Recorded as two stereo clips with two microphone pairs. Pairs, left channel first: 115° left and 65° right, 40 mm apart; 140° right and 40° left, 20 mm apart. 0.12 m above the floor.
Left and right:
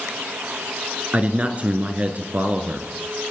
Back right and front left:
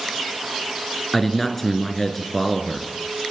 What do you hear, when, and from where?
1.1 s a man speaking: 65° right, 1.6 m